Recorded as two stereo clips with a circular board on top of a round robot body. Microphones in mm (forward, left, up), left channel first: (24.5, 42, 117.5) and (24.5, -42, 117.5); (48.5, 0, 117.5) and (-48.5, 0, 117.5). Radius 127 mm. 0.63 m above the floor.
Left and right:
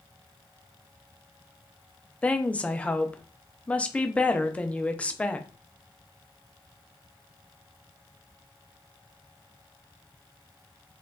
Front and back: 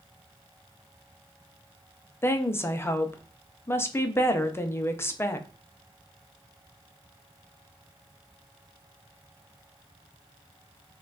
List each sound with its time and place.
2.2 s a woman speaking: 30° left, 0.6 m